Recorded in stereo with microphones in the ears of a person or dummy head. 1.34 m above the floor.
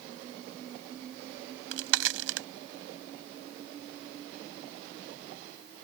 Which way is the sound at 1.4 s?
80° right.